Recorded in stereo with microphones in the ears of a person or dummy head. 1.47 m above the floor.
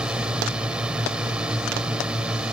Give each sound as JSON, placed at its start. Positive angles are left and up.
{"t": 0.0, "sound": "a drone", "side_deg": -5}